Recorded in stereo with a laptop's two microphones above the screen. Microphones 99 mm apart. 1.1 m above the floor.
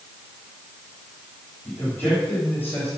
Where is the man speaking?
20° left (ahead or behind), 5.5 m; by 2.9 s 15° left (ahead or behind), 4.5 m.